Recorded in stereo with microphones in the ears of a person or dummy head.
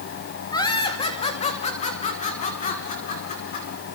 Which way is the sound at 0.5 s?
15° left (ahead or behind).